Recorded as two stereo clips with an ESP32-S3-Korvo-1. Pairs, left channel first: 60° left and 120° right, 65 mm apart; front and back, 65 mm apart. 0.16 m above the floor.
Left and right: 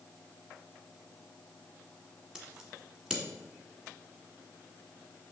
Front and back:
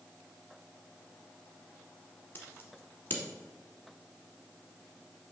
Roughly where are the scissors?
Ahead right.